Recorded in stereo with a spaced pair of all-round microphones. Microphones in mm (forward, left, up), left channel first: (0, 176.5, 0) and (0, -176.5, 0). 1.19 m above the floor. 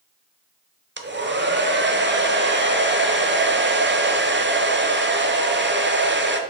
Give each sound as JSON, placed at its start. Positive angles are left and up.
{"t": 1.0, "sound": "a hair dryer", "side_deg": -30, "distance_m": 0.7}